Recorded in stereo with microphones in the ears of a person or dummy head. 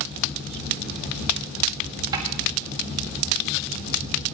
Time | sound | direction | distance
2.1 | a snare drum | 25° right (ahead or behind) | 1.7 m